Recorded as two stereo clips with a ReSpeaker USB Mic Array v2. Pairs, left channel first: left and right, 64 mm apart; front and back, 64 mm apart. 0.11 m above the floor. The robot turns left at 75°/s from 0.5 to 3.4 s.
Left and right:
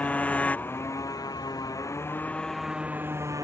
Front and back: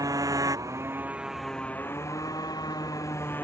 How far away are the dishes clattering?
No dishes clattering in this recording.